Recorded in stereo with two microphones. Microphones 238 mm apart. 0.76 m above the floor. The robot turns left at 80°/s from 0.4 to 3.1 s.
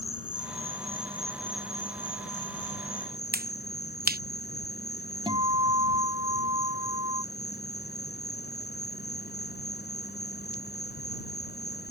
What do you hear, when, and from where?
0.0 s an insect: 100° right; by 11.9 s 45° left
3.3 s a finger snap: 40° right (ahead or behind)
5.3 s a guitar: 20° right (ahead or behind)